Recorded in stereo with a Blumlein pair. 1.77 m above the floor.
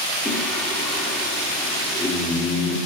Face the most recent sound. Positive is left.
turn(degrees=10)